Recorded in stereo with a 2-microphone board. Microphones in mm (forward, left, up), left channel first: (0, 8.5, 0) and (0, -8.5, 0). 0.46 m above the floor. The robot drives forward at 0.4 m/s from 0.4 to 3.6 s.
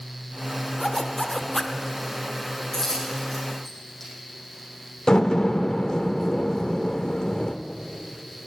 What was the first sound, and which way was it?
A zipper, 15° left (ahead or behind).